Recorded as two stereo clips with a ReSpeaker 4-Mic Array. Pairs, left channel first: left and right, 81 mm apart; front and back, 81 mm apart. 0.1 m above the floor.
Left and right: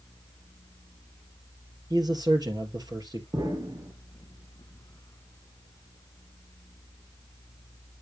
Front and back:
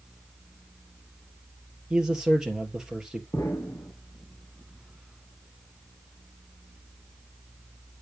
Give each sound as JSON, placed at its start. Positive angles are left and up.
{"t": 1.9, "sound": "a man speaking", "azimuth_deg": -100, "distance_m": 2.5}
{"t": 3.3, "sound": "an explosion", "azimuth_deg": -55, "distance_m": 3.5}